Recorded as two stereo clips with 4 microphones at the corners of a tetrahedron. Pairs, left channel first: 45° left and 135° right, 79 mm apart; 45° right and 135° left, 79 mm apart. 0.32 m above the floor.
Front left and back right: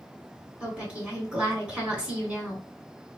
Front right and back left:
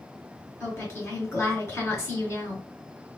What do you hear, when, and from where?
0.6 s a woman speaking: 70° right, 1.7 m